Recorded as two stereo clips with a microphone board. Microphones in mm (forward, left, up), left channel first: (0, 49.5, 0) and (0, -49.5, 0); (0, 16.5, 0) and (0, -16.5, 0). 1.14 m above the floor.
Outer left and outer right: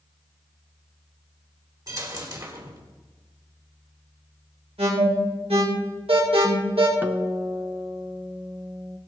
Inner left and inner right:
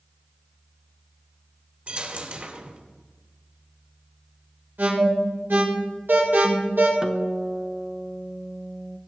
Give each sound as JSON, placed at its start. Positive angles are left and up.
{"t": 1.9, "sound": "a dropped coin", "side_deg": -40, "distance_m": 2.0}
{"t": 4.8, "sound": "an alarm", "side_deg": -85, "distance_m": 5.0}
{"t": 7.0, "sound": "a guitar", "side_deg": -20, "distance_m": 0.8}